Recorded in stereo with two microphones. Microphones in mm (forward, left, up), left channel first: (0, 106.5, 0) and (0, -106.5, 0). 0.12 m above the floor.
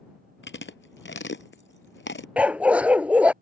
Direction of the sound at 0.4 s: 60° left (ahead or behind).